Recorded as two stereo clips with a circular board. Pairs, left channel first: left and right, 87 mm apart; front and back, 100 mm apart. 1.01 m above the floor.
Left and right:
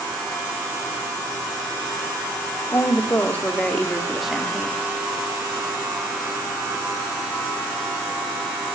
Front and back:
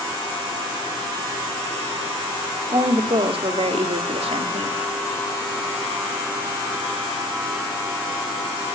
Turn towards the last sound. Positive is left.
turn(degrees=-165)